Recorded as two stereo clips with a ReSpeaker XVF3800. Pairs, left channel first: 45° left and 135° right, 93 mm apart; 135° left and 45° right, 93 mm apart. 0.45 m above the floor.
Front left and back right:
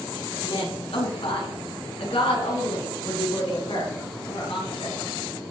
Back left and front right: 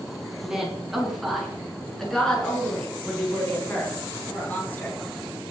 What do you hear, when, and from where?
0.4 s a woman speaking: 35° left, 5 m; by 5.0 s 60° left, 9 m